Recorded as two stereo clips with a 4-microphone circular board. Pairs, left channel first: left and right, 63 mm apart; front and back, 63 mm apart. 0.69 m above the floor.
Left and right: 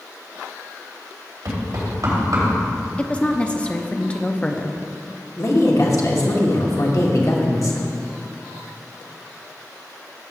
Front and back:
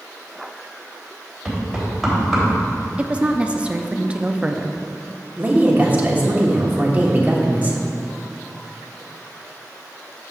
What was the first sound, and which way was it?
Knocking, 90° right.